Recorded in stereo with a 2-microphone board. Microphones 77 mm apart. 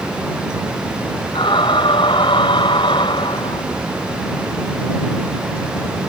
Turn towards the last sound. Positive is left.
turn(degrees=85)